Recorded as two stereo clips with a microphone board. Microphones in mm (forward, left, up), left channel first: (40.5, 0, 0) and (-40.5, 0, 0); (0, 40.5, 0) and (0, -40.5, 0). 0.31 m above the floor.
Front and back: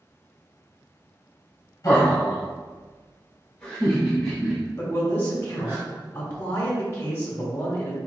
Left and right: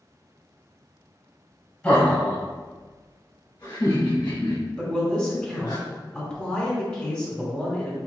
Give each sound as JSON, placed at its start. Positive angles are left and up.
{"t": 1.8, "sound": "laughter", "azimuth_deg": 25, "distance_m": 1.3}
{"t": 4.8, "sound": "a man speaking", "azimuth_deg": 30, "distance_m": 1.2}